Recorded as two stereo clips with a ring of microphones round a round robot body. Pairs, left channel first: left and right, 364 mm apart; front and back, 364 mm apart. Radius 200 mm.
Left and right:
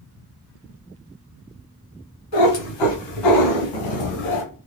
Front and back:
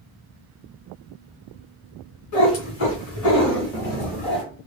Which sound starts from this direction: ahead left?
A cat meowing, at 2.3 s.